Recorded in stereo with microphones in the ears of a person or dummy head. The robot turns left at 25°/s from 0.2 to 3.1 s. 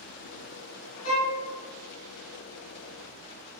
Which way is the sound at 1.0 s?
80° left.